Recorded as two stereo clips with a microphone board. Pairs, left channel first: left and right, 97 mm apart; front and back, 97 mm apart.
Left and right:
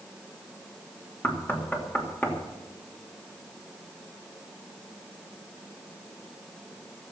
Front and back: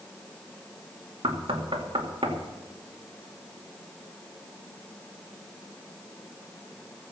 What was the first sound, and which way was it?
Knocking, 160° left.